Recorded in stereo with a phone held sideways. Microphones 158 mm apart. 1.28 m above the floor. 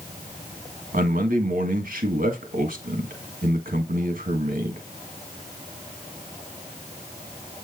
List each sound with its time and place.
0.9 s a man speaking: 65° right (ahead or behind), 1.6 m